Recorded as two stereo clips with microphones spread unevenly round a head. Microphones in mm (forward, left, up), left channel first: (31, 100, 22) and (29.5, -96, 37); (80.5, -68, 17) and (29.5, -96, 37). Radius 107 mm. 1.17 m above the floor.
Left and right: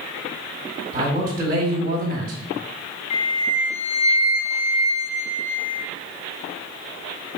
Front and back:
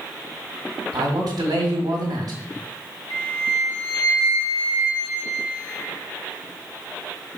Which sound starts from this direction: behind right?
A man speaking, at 0.9 s.